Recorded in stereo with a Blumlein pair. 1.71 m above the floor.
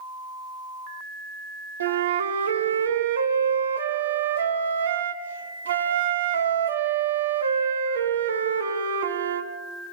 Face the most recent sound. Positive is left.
turn(degrees=-70)